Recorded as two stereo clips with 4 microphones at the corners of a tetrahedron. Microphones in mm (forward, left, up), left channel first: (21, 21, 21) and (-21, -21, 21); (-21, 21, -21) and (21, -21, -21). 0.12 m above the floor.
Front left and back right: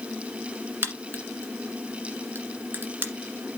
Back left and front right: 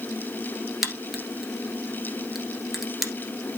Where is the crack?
130° right, 1.6 m.